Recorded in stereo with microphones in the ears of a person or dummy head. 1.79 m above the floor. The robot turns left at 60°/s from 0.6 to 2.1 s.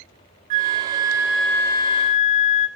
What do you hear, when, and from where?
0.5 s a flute: 135° right, 0.6 m; by 2.7 s 135° left, 0.6 m